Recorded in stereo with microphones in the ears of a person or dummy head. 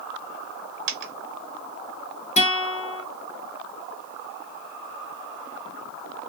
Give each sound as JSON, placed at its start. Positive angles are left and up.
{"t": 0.9, "sound": "a dropped coin", "side_deg": -45, "distance_m": 0.9}
{"t": 2.4, "sound": "a guitar", "side_deg": 35, "distance_m": 1.0}